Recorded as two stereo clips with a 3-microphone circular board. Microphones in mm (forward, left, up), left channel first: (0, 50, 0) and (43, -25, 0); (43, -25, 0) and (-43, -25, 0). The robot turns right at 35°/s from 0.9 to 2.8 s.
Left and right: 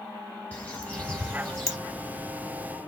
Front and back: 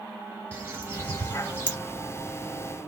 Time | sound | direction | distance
0.5 | a bird | 160° left | 1.3 m